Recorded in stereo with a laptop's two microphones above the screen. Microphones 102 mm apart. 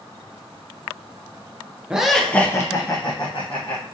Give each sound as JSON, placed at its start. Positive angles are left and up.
{"t": 1.9, "sound": "laughter", "side_deg": -10, "distance_m": 0.5}